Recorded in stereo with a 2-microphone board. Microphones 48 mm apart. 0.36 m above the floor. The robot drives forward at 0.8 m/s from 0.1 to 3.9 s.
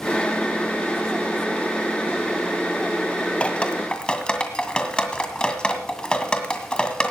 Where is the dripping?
25° left (ahead or behind), 1.5 m; by 7.1 s 20° left (ahead or behind), 1.9 m.